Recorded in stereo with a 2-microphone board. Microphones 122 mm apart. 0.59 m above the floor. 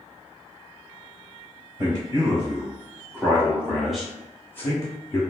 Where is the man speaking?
35° right (ahead or behind), 1.8 m; by 5.2 s 30° left (ahead or behind), 1.1 m.